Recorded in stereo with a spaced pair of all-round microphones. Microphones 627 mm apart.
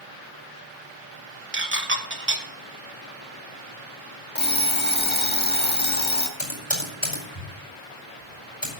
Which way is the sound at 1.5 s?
20° right (ahead or behind).